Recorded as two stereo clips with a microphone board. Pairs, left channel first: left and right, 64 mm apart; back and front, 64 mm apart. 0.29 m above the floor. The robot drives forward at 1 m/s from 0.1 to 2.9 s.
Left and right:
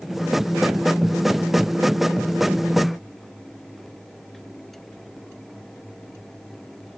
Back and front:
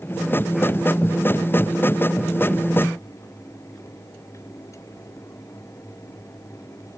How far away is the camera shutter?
No camera shutter in this recording.